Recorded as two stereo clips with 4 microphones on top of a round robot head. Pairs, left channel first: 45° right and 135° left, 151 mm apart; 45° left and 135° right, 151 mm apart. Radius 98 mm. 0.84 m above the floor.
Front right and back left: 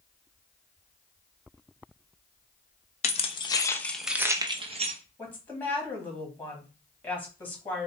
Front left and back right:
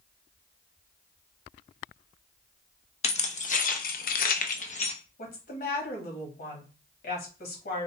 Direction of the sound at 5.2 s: 30° left.